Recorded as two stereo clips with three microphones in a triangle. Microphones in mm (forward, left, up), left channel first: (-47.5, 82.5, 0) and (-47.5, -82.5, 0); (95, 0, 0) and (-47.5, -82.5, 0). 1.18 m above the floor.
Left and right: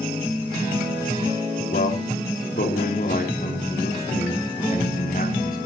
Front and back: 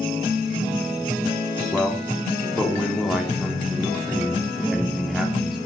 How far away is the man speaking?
About 3 m.